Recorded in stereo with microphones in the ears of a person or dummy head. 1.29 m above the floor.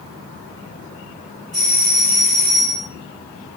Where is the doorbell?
40° right (ahead or behind), 1.1 m.